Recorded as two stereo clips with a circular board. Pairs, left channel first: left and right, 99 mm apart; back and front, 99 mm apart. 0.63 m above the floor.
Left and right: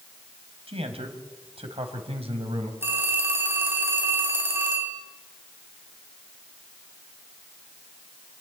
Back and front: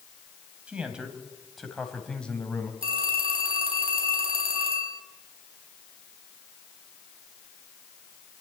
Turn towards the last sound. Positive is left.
turn(degrees=-25)